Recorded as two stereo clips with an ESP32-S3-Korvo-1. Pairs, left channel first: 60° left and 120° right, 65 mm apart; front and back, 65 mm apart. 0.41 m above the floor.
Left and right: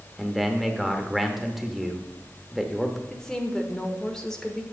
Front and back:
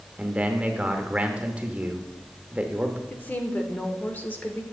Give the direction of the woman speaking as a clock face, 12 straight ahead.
12 o'clock.